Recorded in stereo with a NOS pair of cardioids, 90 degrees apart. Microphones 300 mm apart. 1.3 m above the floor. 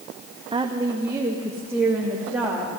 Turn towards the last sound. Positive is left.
turn(degrees=-5)